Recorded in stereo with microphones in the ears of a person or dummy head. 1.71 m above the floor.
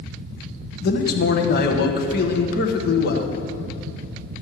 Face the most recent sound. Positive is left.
turn(degrees=65)  # may be behind; listen again after turning